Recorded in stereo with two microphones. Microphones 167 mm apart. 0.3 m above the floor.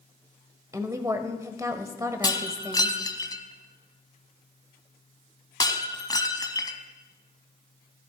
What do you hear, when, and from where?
0.7 s a woman speaking: 20° right (ahead or behind), 1.1 m
2.2 s breaking glass: 25° left (ahead or behind), 1.2 m